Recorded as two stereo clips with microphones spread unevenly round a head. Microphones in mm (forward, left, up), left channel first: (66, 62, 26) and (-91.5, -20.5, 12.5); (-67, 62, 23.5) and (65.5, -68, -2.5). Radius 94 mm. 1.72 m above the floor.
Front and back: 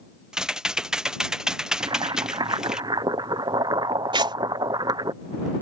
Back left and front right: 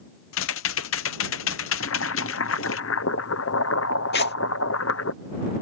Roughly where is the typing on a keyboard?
Behind left.